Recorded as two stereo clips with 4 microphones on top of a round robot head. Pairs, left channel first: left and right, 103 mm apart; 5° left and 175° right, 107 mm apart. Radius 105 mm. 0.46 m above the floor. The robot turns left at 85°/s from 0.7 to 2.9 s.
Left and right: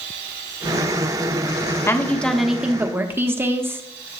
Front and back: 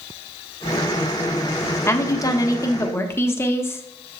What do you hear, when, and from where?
1.9 s a woman speaking: 45° left, 1.1 m; by 3.8 s 40° right, 1.1 m